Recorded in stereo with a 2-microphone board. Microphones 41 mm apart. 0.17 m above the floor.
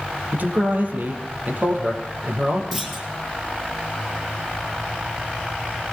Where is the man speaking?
50° right (ahead or behind), 5 m.